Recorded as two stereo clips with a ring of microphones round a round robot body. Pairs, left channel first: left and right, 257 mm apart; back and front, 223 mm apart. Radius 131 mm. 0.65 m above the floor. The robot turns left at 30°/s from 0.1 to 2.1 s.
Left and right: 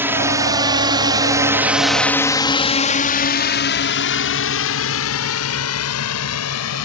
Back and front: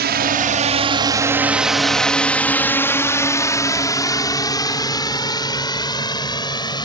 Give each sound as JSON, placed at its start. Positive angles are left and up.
{"t": 0.0, "sound": "a drone", "azimuth_deg": -10}